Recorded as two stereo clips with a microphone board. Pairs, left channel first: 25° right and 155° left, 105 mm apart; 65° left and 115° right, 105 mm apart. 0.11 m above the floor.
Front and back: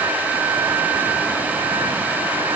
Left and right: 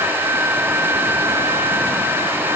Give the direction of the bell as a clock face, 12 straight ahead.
No bell in this recording.